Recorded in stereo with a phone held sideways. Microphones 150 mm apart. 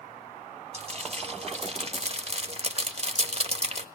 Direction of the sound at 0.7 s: 45° right (ahead or behind).